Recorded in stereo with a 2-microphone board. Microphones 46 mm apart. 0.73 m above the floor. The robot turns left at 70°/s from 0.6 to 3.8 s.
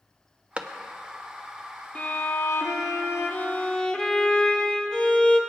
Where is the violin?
145° left, 0.9 m; by 5.4 s 15° left, 0.9 m.